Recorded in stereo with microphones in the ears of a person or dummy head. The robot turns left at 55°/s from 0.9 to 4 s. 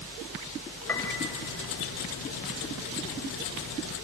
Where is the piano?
15° left (ahead or behind), 3 m; by 1.2 s 30° left (ahead or behind), 3 m.